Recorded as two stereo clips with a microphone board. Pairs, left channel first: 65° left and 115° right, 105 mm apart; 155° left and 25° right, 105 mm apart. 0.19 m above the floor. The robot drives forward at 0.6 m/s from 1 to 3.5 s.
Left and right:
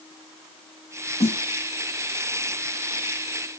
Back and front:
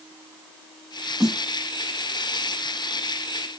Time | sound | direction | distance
1.2 | a snare drum | 65° left | 7 m